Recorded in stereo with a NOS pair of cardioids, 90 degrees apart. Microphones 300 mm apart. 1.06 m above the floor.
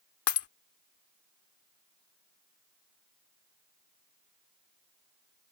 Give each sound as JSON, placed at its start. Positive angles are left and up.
{"t": 0.3, "sound": "breaking glass", "azimuth_deg": 55}